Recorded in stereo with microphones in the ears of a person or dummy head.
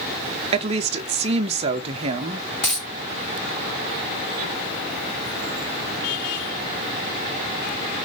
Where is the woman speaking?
35° right (ahead or behind), 0.9 m.